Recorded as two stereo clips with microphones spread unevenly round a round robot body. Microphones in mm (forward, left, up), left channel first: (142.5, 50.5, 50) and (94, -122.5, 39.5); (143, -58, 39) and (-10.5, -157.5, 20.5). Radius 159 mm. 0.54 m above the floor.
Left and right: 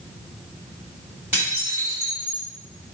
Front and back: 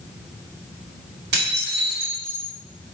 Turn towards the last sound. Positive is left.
turn(degrees=175)